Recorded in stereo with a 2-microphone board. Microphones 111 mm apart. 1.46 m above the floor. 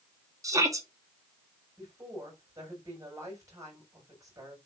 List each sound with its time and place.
0.4 s a shout: 30° right (ahead or behind), 2.5 m
1.8 s a woman speaking: 30° right (ahead or behind), 7 m